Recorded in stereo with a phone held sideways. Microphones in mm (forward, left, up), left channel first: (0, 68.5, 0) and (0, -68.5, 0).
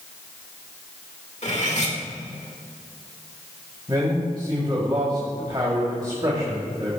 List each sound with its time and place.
1.4 s cutlery clinking: 55° left (ahead or behind), 1.8 m
3.9 s a man speaking: 35° right (ahead or behind), 2.5 m